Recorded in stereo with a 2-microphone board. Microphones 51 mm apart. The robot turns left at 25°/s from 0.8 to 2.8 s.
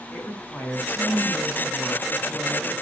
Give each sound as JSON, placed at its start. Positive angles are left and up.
{"t": 0.1, "sound": "a woman speaking", "azimuth_deg": 40, "distance_m": 5.5}